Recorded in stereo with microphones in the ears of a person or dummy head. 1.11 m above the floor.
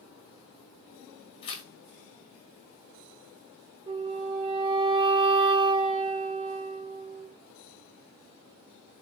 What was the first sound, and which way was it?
Tearing paper, 30° left (ahead or behind).